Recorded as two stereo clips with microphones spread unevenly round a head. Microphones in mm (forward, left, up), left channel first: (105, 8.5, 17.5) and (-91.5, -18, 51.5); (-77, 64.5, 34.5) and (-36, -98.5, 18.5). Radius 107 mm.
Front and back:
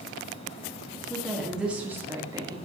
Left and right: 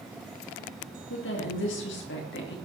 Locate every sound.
1.1 s a woman speaking: 95° left, 2.5 m; by 2.5 s 115° left, 2.5 m